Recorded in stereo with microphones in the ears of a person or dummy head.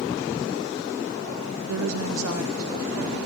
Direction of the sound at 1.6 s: 85° right.